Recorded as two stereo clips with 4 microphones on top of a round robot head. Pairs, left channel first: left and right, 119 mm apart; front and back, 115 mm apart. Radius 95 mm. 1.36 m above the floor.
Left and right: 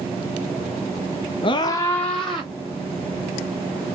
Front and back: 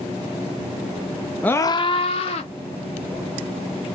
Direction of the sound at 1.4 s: 75° left.